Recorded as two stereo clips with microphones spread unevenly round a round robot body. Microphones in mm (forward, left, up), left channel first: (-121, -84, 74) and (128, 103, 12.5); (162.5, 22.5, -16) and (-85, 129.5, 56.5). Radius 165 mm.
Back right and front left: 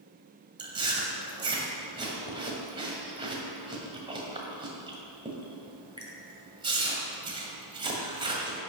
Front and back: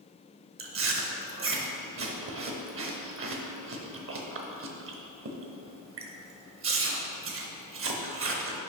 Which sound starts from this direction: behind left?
Chewing, at 0.6 s.